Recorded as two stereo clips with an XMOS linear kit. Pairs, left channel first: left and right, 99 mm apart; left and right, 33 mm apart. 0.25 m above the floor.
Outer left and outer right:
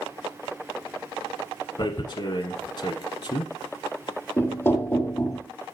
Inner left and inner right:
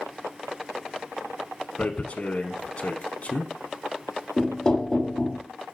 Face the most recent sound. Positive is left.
turn(degrees=25)  # may be behind; listen again after turning